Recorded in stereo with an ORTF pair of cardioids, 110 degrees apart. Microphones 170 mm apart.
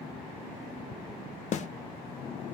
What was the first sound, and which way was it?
A snare drum, 50° left.